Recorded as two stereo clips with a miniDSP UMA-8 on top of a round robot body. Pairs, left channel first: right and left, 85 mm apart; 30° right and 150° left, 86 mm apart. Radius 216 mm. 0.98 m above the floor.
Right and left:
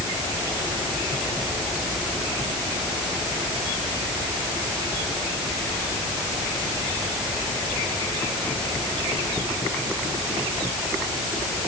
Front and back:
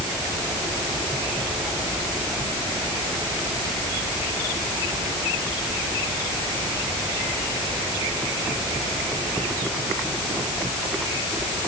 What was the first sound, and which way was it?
Only background noise.